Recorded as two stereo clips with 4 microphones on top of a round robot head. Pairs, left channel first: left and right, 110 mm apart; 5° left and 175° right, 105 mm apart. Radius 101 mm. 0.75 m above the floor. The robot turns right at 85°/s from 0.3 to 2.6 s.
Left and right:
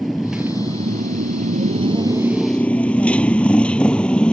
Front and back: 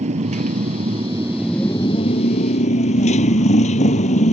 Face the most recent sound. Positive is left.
turn(degrees=10)